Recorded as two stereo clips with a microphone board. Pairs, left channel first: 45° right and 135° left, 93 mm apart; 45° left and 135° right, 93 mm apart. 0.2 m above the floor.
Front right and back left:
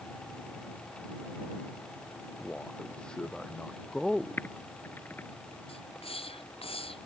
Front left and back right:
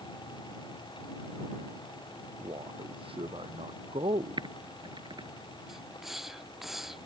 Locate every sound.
2.4 s a man speaking: 125° right; by 4.5 s 135° right
4.4 s typing on a keyboard: 115° right
5.7 s a hiss: 50° right